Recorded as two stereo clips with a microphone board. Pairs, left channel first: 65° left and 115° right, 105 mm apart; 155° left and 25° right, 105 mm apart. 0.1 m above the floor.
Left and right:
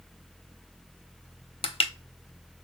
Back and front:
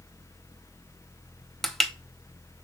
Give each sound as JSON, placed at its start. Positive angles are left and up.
{"t": 1.6, "sound": "crushing", "azimuth_deg": 70, "distance_m": 0.6}